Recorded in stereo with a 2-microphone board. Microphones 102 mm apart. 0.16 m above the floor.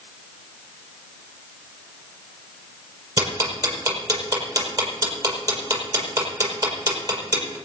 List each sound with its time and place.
3.2 s ticking: 35° right (ahead or behind), 5.5 m